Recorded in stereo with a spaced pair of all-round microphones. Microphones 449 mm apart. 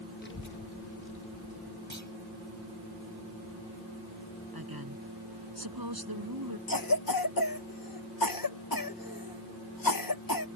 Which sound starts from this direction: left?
A cough, at 6.7 s.